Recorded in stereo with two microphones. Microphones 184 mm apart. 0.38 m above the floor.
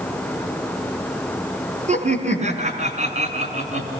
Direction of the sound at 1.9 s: 40° right (ahead or behind).